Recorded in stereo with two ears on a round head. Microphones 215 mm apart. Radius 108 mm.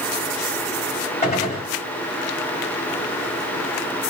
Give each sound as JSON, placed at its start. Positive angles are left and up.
{"t": 1.2, "sound": "a gunshot", "side_deg": 30, "distance_m": 1.9}